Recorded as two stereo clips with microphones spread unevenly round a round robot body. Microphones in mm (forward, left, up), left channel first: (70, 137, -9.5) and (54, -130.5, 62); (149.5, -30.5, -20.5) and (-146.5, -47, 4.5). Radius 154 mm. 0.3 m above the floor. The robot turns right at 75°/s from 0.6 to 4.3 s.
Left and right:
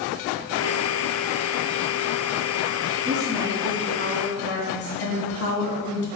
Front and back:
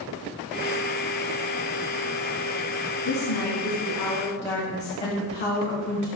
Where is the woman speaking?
40° right, 2.5 m; by 6.1 s 55° left, 2.5 m.